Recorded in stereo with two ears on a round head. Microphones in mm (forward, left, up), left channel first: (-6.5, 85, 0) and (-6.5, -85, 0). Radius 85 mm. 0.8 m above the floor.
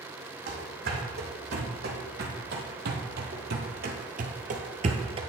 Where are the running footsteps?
50° right (ahead or behind), 2.5 m; by 5.2 s 30° right (ahead or behind), 0.9 m.